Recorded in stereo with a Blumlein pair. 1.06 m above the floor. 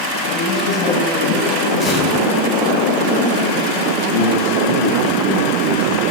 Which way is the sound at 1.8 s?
10° left.